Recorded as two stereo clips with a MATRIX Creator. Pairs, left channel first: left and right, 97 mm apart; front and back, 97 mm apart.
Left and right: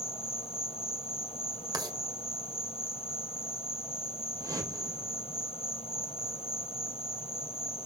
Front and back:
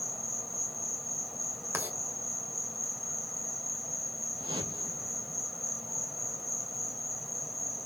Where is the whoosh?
145° right, 3 m.